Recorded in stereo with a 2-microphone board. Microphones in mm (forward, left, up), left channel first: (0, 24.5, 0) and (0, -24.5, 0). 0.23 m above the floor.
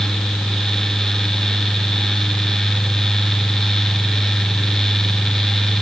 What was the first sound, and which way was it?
Only background noise.